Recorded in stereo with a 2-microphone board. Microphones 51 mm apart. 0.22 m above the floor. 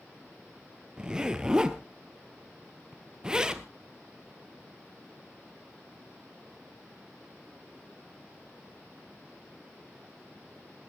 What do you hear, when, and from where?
1.0 s a zipper: 15° right (ahead or behind), 1.2 m